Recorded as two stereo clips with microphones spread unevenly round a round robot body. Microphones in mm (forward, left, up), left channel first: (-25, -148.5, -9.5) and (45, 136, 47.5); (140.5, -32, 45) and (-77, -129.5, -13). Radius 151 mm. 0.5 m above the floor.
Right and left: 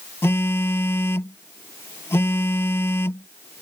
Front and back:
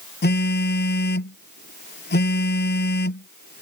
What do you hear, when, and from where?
0.2 s a phone buzzing: 20° right